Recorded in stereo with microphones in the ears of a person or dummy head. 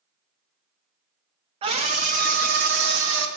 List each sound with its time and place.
1.6 s a scream: 35° right (ahead or behind), 1.7 m; by 3.3 s 75° right (ahead or behind), 2.0 m